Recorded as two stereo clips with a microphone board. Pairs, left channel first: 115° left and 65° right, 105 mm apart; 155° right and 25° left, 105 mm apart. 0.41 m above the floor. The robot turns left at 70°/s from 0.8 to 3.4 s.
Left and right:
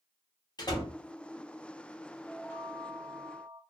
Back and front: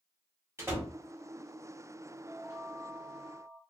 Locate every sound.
0.6 s a door slam: 80° left, 1.0 m; by 0.9 s 70° left, 1.0 m
2.3 s a chime: 60° left, 1.0 m; by 3.6 s 20° right, 1.0 m